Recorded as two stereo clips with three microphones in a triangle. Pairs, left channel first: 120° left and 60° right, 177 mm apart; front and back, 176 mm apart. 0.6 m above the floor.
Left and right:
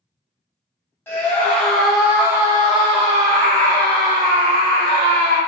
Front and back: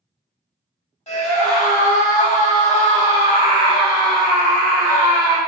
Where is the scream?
45° left, 1.4 m; by 5.4 s 85° right, 1.8 m.